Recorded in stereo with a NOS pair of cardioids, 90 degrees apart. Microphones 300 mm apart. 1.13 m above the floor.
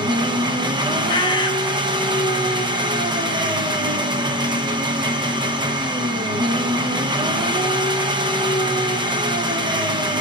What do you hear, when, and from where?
0.0 s an engine running: 15° right, 0.8 m
1.1 s a bird: 15° left, 0.8 m